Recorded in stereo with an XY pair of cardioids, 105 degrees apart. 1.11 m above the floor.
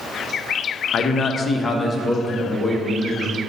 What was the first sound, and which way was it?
A man speaking, 55° left.